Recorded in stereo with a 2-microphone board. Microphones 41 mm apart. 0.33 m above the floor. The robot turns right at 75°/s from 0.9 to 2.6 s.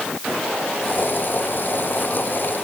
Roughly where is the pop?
I don't hear a pop.